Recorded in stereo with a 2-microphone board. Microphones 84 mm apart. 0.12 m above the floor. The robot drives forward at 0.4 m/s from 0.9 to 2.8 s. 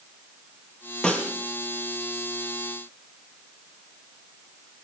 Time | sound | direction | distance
1.0 | a snare drum | 10° left (ahead or behind) | 2.5 m